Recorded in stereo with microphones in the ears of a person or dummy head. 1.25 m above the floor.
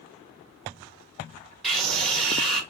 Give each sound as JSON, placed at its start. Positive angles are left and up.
{"t": 1.6, "sound": "a scream", "side_deg": 0, "distance_m": 1.9}